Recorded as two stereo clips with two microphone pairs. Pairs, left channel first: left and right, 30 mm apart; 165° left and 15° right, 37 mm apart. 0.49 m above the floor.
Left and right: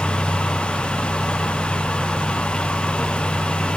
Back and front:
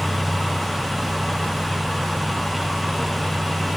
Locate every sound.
Only background noise.